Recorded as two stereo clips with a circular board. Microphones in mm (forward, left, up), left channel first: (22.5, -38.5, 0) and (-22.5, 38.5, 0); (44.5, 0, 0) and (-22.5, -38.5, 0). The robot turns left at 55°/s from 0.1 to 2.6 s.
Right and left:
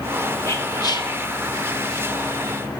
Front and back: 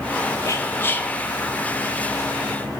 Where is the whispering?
5° right, 1.2 m; by 1.1 s 45° right, 1.2 m.